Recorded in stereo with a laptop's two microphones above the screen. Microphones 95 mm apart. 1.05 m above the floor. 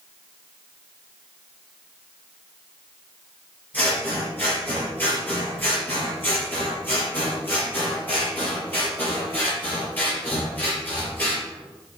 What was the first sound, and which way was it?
Scissors, 20° left (ahead or behind).